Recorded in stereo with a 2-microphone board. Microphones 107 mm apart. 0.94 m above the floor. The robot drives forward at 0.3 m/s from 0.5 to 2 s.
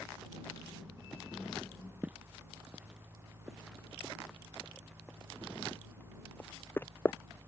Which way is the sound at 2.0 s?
15° right (ahead or behind).